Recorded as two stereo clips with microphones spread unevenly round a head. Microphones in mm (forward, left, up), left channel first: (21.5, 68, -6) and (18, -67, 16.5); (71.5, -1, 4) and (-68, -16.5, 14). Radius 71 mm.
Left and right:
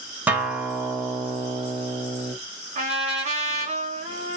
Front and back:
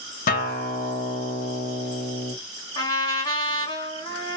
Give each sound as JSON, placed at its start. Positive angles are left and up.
{"t": 0.3, "sound": "a guitar", "azimuth_deg": -10, "distance_m": 1.1}
{"t": 2.8, "sound": "a trumpet", "azimuth_deg": -55, "distance_m": 1.9}